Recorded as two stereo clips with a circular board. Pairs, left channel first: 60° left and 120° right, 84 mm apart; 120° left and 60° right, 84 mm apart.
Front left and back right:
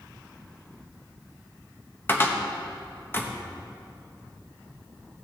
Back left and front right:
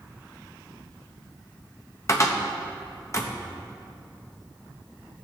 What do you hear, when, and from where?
2.1 s a cupboard door: 105° left, 1.0 m